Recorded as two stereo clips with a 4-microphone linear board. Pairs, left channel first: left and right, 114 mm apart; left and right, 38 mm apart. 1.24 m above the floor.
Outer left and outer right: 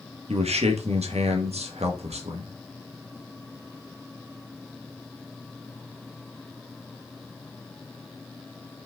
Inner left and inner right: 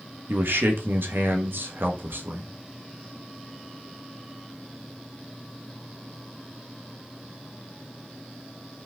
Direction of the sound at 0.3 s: 70° right (ahead or behind).